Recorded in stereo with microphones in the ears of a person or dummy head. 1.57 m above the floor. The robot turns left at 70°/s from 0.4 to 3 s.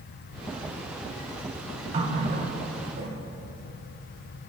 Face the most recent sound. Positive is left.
turn(degrees=-130)